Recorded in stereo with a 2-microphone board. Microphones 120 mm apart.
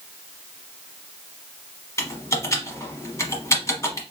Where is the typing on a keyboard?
25° left (ahead or behind), 1.0 m.